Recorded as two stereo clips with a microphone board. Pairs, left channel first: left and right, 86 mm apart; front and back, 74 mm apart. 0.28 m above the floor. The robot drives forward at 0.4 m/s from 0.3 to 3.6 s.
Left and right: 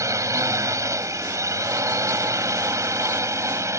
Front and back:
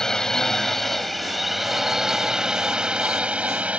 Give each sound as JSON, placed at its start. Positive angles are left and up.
{"t": 0.0, "sound": "a drone", "azimuth_deg": -75}